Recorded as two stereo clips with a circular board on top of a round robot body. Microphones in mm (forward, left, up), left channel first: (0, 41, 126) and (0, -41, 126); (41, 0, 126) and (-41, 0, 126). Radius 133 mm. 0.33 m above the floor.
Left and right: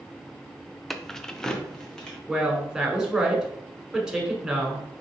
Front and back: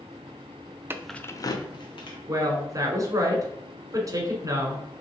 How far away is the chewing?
I don't hear chewing.